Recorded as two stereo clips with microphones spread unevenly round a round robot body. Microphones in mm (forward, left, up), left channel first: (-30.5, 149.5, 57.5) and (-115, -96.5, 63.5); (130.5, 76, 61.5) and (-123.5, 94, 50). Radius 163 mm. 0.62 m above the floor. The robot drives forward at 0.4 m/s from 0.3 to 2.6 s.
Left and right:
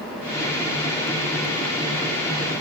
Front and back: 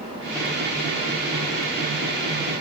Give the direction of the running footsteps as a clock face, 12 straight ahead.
I don't hear running footsteps.